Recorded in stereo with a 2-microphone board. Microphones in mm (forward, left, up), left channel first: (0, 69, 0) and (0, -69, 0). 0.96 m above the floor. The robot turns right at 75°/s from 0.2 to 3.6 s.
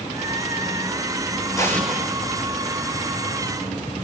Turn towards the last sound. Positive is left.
turn(degrees=-50)